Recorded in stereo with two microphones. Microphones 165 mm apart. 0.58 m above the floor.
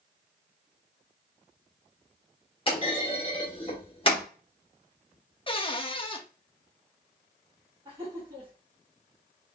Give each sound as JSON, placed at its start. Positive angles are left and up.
{"t": 2.7, "sound": "a clunk", "side_deg": 35, "distance_m": 1.2}
{"t": 5.5, "sound": "a cupboard door", "side_deg": 35, "distance_m": 0.5}
{"t": 7.8, "sound": "laughter", "side_deg": -30, "distance_m": 1.6}